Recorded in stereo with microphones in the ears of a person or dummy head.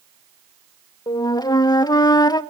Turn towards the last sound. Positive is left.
turn(degrees=20)  # may be behind; listen again after turning